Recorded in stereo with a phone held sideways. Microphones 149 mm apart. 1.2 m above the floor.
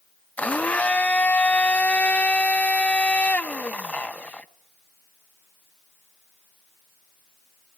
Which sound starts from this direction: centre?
A blender, at 0.4 s.